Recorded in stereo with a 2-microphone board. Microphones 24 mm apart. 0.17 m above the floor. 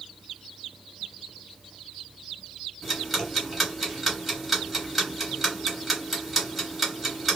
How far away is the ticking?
About 1.9 m.